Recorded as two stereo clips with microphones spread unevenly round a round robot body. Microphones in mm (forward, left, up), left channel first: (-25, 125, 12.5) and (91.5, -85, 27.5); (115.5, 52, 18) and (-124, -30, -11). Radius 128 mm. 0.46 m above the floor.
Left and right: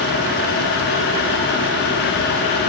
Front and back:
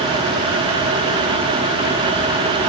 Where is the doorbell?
I don't hear a doorbell.